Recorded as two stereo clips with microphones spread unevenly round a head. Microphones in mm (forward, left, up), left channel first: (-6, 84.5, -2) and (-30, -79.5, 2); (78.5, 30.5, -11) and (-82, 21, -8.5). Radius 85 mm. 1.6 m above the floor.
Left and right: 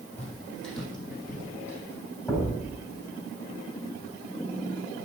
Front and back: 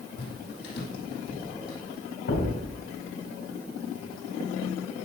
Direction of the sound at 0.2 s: Straight ahead.